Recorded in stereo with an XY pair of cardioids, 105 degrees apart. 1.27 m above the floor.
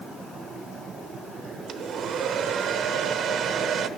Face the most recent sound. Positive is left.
turn(degrees=-65)